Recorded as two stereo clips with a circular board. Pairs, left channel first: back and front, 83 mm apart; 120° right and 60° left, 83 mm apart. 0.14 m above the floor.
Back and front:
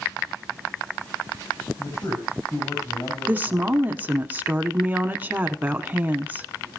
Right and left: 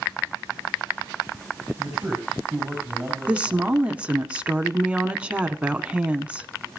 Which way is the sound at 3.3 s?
10° left.